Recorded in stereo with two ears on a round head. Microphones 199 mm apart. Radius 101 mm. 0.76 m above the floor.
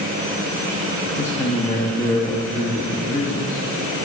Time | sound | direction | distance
1.2 | a man speaking | 15° left (ahead or behind) | 0.8 m